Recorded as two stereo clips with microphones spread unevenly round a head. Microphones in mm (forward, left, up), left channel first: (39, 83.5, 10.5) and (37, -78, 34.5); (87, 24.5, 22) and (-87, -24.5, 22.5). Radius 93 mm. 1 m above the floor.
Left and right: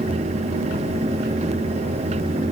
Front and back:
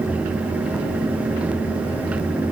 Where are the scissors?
I don't hear scissors.